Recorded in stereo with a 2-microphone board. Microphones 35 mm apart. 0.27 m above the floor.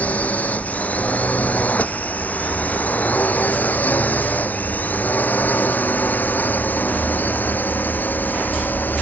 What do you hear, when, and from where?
0.0 s a drone: 45° left (ahead or behind); by 9.0 s 60° left (ahead or behind)